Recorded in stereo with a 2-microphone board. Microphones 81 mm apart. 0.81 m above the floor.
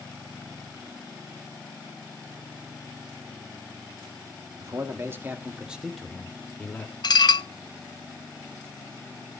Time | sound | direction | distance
4.6 | a man speaking | 40° right (ahead or behind) | 2.5 m
7.0 | dishes clattering | 60° left (ahead or behind) | 0.5 m